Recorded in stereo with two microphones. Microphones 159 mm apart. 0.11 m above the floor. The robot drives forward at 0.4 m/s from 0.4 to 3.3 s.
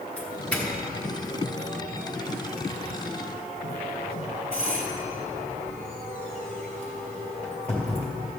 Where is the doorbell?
10° left (ahead or behind), 2 m; by 8.1 s 5° left (ahead or behind), 3 m.